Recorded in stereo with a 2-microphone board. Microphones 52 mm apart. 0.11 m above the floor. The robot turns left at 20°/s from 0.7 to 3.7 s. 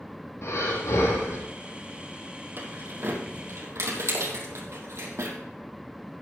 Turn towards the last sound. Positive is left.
turn(degrees=-65)  # may be behind; listen again after turning